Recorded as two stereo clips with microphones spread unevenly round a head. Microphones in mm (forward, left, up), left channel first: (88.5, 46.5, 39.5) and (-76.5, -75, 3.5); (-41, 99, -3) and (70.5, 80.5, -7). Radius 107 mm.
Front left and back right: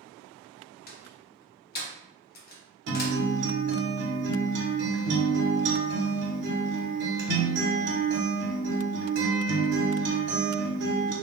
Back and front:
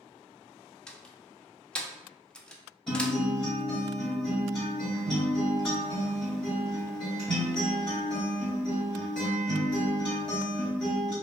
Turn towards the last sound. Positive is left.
turn(degrees=-105)